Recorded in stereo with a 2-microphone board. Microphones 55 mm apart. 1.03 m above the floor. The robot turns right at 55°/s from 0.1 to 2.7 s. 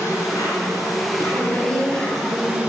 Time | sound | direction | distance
0.0 | an insect | 65° left | 3 m
1.3 | a woman speaking | 150° left | 6 m